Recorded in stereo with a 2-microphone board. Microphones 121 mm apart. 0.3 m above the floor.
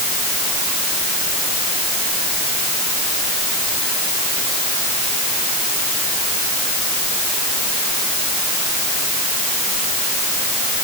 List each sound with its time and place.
Only background noise.